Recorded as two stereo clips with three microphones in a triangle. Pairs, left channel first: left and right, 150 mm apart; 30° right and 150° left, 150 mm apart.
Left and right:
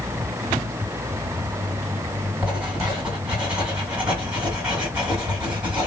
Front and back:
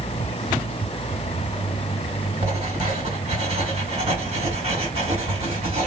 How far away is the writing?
About 2.5 m.